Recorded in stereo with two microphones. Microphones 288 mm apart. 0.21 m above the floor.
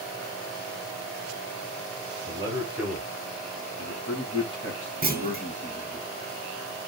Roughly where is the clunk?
Right.